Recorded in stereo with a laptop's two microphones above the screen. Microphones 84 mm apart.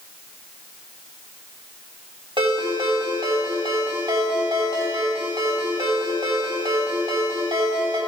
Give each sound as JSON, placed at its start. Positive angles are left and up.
{"t": 2.4, "sound": "a ringtone", "side_deg": -80, "distance_m": 3.0}